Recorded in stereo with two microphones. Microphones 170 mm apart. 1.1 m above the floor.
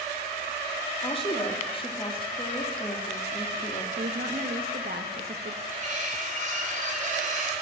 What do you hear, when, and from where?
1.0 s a woman speaking: 30° left (ahead or behind), 1.9 m
4.0 s a woman speaking: 70° right (ahead or behind), 1.4 m
5.7 s cutlery clinking: 50° right (ahead or behind), 3.5 m